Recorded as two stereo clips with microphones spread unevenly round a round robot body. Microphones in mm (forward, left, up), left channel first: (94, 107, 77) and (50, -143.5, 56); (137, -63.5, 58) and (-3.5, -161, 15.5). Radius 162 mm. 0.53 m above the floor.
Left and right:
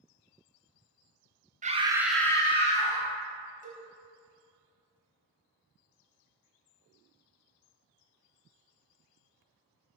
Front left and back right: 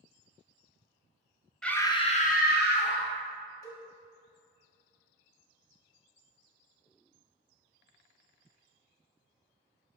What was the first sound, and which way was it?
A scream, 70° right.